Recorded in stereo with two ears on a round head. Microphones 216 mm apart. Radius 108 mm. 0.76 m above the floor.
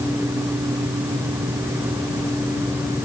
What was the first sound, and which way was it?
Only background noise.